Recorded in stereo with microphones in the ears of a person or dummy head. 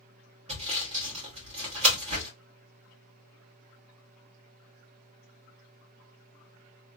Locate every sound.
0.5 s sawing: 30° right (ahead or behind), 1.3 m